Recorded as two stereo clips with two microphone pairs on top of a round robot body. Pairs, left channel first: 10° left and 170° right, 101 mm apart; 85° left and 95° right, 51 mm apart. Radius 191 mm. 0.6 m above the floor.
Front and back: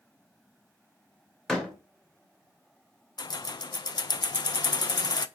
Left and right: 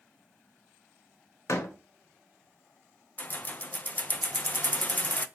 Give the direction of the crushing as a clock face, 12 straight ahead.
No crushing in this recording.